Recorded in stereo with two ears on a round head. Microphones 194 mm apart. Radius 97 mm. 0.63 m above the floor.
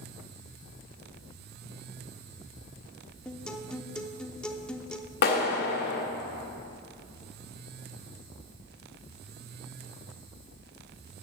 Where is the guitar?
5° left (ahead or behind), 0.6 m.